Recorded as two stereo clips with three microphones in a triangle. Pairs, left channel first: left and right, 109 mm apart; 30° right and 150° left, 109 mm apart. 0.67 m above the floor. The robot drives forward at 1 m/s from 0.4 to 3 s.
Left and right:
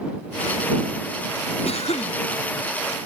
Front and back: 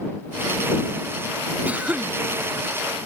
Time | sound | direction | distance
1.6 | a cough | 70° left | ?